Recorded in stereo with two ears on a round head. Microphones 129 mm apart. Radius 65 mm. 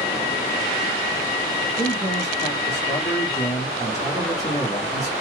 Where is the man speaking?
25° left (ahead or behind), 1.2 m.